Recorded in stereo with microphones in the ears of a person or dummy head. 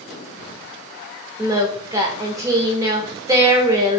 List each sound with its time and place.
1.4 s singing: 15° right (ahead or behind), 0.5 m